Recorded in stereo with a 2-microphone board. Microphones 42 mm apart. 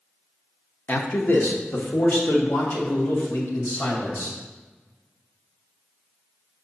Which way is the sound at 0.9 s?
40° left (ahead or behind).